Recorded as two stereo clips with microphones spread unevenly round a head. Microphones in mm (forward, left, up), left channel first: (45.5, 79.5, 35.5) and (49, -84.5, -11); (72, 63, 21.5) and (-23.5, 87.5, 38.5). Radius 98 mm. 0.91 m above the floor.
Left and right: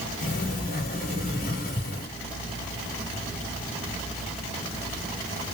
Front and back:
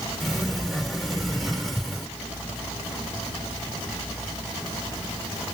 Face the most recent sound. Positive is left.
turn(degrees=80)